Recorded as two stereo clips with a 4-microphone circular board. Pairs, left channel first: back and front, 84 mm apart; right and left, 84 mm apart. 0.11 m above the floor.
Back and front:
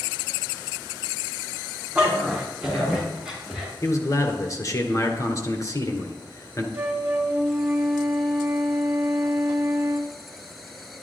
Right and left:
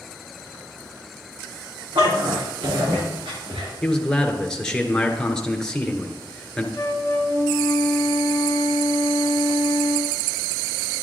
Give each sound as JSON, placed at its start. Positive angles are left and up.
{"t": 1.9, "sound": "a dog barking", "azimuth_deg": 80, "distance_m": 4.0}
{"t": 3.8, "sound": "a man speaking", "azimuth_deg": -170, "distance_m": 1.4}
{"t": 6.7, "sound": "a flute", "azimuth_deg": -55, "distance_m": 1.4}